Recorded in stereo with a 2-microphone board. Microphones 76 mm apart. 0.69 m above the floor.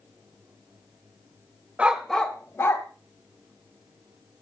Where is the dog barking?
15° right (ahead or behind), 1.1 m; by 2.9 s 40° left (ahead or behind), 2.0 m.